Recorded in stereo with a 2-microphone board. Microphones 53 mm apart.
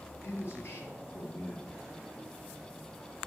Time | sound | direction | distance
0.2 | a man speaking | 50° left (ahead or behind) | 2 m